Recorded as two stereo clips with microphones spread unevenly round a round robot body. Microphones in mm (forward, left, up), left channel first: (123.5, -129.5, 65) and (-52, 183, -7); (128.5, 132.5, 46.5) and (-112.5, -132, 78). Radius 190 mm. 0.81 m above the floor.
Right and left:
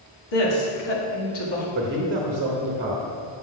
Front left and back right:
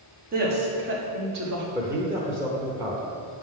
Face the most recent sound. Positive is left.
turn(degrees=140)